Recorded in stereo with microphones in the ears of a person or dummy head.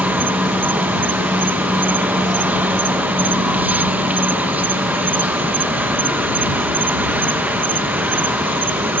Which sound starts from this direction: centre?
An insect, at 0.0 s.